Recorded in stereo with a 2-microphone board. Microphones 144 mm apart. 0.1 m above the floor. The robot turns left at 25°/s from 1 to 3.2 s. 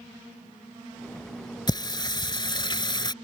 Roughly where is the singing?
Left.